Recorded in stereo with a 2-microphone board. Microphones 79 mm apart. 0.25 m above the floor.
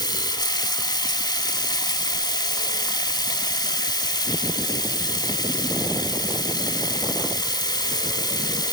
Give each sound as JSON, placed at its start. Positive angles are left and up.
{"t": 0.0, "sound": "running water", "side_deg": 65, "distance_m": 0.8}